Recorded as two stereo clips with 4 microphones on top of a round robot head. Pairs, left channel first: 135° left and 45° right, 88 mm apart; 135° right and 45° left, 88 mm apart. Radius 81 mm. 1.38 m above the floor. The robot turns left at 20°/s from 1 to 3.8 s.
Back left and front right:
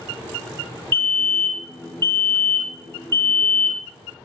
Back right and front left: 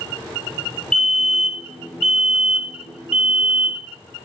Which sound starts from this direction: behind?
A fire alarm, at 0.9 s.